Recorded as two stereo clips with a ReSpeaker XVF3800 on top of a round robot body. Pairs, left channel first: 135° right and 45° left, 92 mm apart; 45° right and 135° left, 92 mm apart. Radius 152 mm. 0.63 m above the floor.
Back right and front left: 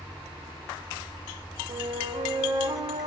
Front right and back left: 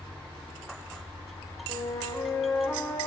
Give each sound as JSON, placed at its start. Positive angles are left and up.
{"t": 1.7, "sound": "a flute", "azimuth_deg": 10, "distance_m": 0.6}